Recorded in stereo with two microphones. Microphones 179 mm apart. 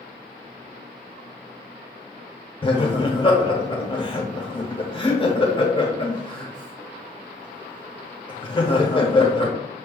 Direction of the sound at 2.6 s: 30° left (ahead or behind).